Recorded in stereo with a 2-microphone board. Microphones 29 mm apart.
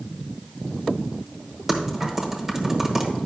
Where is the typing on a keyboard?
10° right (ahead or behind), 1.1 m.